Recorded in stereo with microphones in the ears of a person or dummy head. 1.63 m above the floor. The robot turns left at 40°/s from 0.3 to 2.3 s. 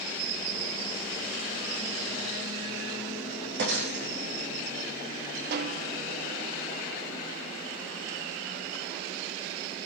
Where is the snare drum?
60° right (ahead or behind), 0.5 m.